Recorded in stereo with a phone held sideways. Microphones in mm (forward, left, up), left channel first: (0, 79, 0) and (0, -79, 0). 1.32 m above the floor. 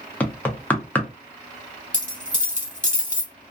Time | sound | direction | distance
0.2 | knocking | 10° left (ahead or behind) | 0.6 m
1.9 | a dropped coin | 15° right (ahead or behind) | 1.6 m